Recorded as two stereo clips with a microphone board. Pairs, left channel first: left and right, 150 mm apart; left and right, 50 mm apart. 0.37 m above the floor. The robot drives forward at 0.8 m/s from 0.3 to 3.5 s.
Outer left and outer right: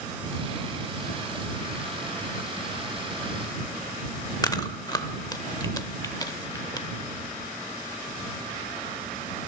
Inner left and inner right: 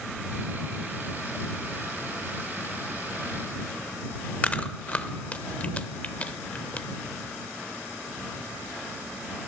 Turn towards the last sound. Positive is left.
turn(degrees=25)  # may be behind; listen again after turning